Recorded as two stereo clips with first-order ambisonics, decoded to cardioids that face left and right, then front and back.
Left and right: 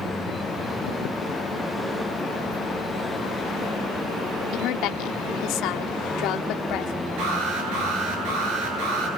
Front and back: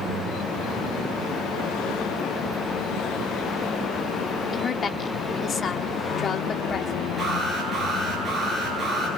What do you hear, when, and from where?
4.5 s a woman speaking: 65° left, 1.5 m
7.2 s an alarm: 100° right, 9.5 m